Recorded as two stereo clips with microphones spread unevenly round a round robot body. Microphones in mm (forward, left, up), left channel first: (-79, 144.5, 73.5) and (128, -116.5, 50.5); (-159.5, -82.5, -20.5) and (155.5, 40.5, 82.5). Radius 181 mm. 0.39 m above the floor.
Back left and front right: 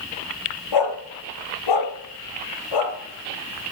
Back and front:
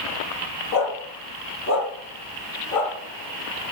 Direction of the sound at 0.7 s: 160° left.